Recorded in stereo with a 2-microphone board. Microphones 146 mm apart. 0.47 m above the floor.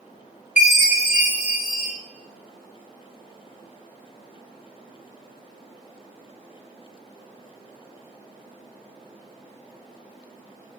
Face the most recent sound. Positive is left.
turn(degrees=55)  # may be behind; listen again after turning